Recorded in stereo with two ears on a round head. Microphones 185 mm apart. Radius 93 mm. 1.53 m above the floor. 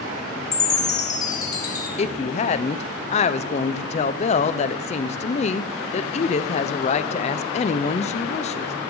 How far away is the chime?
About 3 m.